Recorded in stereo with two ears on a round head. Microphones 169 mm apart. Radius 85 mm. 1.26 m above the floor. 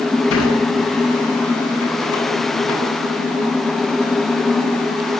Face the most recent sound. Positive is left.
turn(degrees=85)